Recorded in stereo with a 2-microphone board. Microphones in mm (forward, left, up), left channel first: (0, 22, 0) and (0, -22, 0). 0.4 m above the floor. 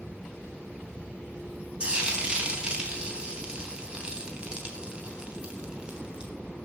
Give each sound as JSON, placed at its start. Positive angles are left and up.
{"t": 1.8, "sound": "frying", "side_deg": -25, "distance_m": 2.5}